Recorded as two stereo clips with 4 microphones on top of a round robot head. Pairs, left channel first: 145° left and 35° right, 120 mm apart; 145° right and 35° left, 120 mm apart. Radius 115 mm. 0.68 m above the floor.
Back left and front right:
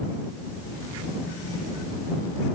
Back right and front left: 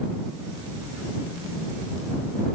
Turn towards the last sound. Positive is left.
No sound to turn to.